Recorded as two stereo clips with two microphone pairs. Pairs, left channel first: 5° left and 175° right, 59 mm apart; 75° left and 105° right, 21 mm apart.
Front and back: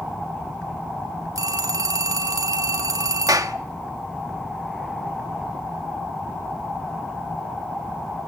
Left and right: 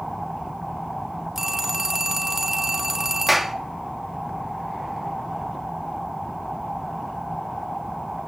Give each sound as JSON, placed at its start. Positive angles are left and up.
{"t": 1.4, "sound": "a phone ringing", "azimuth_deg": -175, "distance_m": 1.9}
{"t": 3.3, "sound": "a clap", "azimuth_deg": 175, "distance_m": 1.3}